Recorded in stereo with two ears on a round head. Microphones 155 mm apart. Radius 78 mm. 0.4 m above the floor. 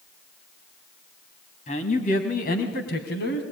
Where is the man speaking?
40° left (ahead or behind), 3 m; by 3.4 s 65° left (ahead or behind), 3.5 m.